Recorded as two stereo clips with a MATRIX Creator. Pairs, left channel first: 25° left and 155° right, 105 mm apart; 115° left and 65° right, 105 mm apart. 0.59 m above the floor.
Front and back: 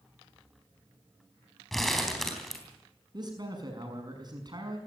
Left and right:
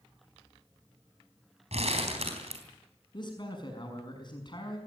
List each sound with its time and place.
1.7 s crumpling: 65° right, 3.5 m
3.1 s a man speaking: 155° left, 6 m